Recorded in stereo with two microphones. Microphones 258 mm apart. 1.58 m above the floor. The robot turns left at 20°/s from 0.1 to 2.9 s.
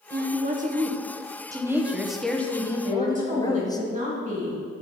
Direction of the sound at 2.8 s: 30° right (ahead or behind).